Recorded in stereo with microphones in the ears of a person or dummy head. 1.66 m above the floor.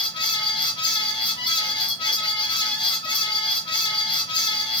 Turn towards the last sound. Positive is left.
turn(degrees=30)  # may be behind; listen again after turning